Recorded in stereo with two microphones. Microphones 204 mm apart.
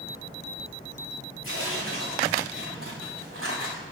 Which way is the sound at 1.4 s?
85° right.